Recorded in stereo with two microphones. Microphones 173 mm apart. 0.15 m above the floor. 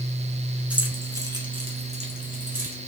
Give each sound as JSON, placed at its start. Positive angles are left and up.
{"t": 0.7, "sound": "keys jangling", "side_deg": -5, "distance_m": 1.1}